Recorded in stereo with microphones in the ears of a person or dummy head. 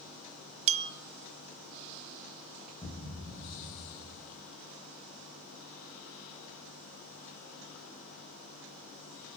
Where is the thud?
5° left (ahead or behind), 1.6 m.